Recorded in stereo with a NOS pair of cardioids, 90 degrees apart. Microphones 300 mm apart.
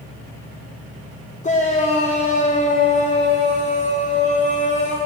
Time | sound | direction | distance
1.4 | a shout | 25° left | 0.9 m